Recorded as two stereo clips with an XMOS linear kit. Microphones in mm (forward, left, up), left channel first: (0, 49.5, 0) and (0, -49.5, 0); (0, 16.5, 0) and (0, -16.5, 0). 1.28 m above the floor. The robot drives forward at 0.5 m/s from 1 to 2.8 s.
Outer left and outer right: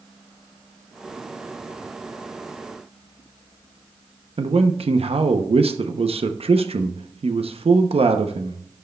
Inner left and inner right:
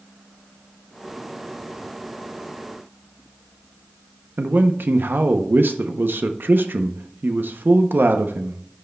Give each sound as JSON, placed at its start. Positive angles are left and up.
{"t": 4.4, "sound": "a man speaking", "side_deg": -80, "distance_m": 0.7}